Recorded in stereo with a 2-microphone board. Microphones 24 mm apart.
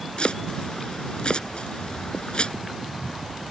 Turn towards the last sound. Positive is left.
turn(degrees=45)  # may be behind; listen again after turning